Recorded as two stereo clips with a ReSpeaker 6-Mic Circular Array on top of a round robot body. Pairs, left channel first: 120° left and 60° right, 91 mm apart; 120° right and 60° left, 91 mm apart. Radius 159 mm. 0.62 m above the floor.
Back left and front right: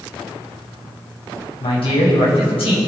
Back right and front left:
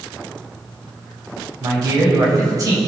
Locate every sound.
1.6 s a man speaking: 115° left, 4 m